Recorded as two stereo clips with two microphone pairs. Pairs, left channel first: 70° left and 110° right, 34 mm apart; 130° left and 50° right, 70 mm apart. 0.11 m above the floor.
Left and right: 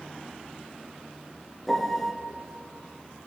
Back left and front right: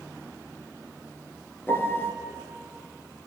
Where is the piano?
145° left, 1.1 m.